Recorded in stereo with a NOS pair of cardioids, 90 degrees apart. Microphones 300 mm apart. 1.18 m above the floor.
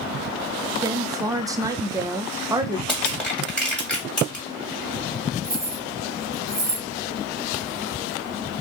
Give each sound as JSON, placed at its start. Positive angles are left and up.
{"t": 0.8, "sound": "a woman speaking", "azimuth_deg": -10, "distance_m": 0.5}
{"t": 2.9, "sound": "crushing", "azimuth_deg": 5, "distance_m": 1.6}
{"t": 5.4, "sound": "keys jangling", "azimuth_deg": -10, "distance_m": 1.0}